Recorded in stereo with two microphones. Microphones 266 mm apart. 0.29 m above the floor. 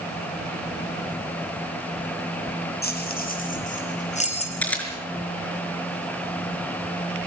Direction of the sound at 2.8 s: 35° left (ahead or behind).